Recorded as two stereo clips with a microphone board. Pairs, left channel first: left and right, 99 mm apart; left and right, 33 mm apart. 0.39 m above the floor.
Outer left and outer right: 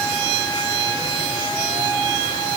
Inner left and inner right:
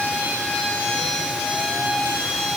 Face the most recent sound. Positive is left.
No sound to turn to.